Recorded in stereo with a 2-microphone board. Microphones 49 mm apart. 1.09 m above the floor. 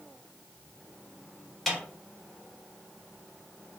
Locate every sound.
1.7 s a snare drum: 5° left (ahead or behind), 0.9 m